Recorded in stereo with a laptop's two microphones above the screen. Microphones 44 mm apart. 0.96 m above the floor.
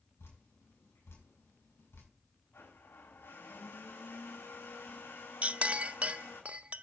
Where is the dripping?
75° left (ahead or behind), 5 m.